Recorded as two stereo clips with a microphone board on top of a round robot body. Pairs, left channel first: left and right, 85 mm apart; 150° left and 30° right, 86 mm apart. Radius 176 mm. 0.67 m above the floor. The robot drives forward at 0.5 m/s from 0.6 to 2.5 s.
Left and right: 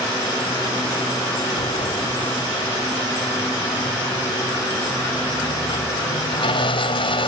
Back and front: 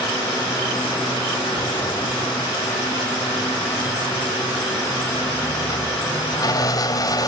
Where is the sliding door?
100° left; by 7.3 s 105° left.